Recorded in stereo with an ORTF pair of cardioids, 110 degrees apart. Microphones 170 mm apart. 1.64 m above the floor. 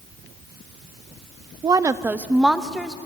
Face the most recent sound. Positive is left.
turn(degrees=0)